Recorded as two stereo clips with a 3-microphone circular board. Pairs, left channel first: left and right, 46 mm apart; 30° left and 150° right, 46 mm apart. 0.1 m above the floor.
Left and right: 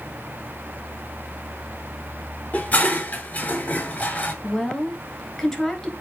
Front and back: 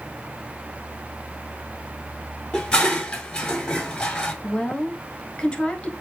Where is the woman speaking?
25° left, 1.1 m.